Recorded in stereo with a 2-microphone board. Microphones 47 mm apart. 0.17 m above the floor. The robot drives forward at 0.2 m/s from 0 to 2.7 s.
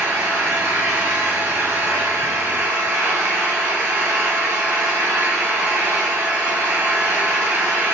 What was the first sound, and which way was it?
An engine running, 70° right (ahead or behind).